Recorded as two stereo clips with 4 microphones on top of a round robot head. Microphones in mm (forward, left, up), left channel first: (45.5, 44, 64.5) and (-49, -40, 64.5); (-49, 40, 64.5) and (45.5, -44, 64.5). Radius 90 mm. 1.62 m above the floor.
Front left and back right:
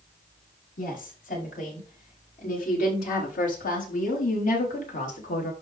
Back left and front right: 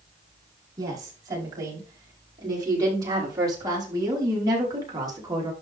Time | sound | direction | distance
0.8 | a woman speaking | 20° left | 5.5 m